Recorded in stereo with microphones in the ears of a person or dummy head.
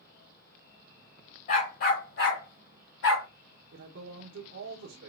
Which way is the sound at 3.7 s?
60° right (ahead or behind).